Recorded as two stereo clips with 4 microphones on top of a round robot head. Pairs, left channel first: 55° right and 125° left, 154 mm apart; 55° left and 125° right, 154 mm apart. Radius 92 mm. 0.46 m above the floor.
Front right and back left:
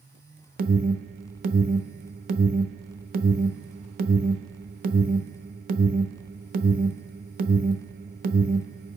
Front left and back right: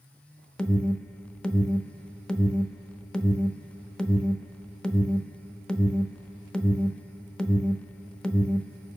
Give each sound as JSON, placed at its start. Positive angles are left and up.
{"t": 0.6, "sound": "an alarm", "azimuth_deg": 135, "distance_m": 0.9}